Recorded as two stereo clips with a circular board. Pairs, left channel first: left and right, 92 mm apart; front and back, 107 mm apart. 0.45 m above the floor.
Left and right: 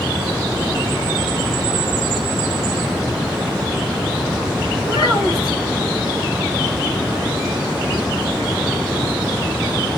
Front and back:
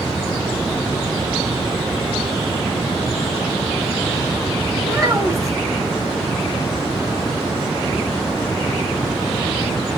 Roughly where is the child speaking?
Behind left.